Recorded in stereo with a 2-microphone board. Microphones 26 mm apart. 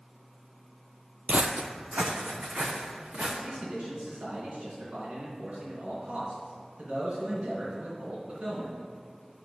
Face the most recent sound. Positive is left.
turn(degrees=-55)  # may be behind; listen again after turning